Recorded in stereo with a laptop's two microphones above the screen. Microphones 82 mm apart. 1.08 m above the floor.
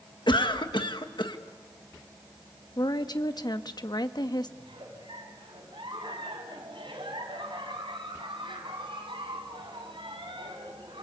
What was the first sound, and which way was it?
A cough, 60° left (ahead or behind).